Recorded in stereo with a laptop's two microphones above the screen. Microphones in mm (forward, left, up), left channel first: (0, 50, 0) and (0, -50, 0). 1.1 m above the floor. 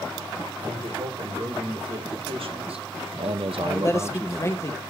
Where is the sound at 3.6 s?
30° left (ahead or behind), 1.0 m.